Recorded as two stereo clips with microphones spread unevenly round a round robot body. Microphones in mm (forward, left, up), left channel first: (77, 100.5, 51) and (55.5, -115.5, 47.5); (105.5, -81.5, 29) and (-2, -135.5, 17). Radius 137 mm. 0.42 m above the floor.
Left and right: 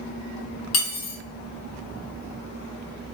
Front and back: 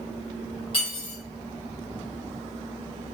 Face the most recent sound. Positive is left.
turn(degrees=90)